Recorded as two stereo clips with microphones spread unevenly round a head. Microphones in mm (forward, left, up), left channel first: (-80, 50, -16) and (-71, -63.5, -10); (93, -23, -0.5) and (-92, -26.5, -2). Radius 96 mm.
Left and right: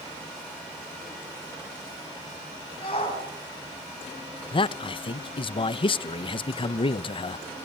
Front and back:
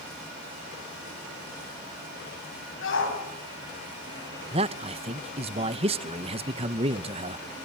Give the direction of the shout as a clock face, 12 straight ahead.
11 o'clock.